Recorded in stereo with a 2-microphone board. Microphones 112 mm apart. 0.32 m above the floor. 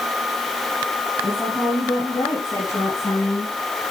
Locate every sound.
1.2 s a woman speaking: 25° left (ahead or behind), 5.5 m; by 3.5 s 20° left (ahead or behind), 6.5 m